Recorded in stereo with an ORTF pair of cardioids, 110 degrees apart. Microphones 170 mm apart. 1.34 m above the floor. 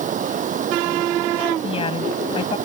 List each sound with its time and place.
0.0 s running water: 50° right
1.6 s a woman speaking: 35° left